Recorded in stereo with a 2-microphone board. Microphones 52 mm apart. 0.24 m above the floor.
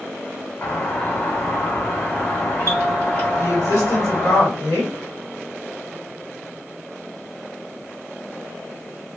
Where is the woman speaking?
60° left (ahead or behind), 1.9 m.